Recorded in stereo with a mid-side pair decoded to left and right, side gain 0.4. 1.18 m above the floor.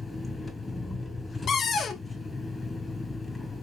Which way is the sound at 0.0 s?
25° left.